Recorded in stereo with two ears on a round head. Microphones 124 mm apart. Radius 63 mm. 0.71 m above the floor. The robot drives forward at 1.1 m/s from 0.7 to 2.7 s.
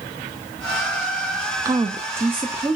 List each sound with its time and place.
1.6 s a woman speaking: 20° right (ahead or behind), 0.6 m; by 2.8 s 10° right (ahead or behind), 1.1 m